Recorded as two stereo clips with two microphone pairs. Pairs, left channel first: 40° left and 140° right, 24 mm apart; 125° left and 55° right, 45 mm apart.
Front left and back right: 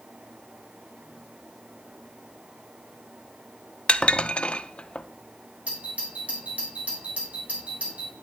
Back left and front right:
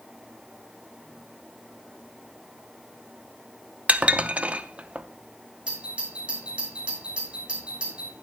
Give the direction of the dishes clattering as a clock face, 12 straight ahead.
12 o'clock.